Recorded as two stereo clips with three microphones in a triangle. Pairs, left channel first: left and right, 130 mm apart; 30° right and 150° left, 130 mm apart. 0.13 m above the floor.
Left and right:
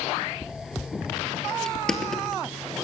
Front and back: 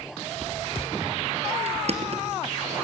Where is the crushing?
175° left, 3 m.